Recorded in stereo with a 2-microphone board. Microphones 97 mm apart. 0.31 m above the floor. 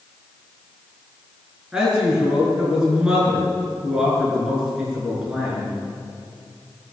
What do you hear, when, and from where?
1.7 s a man speaking: 10° right (ahead or behind), 5.5 m